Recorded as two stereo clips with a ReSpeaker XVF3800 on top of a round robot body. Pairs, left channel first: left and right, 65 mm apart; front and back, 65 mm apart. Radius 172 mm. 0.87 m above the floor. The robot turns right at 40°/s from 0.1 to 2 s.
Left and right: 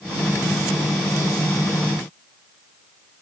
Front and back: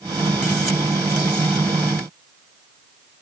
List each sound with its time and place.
Only background noise.